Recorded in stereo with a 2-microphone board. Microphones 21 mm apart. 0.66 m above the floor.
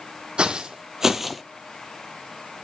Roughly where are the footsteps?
Right.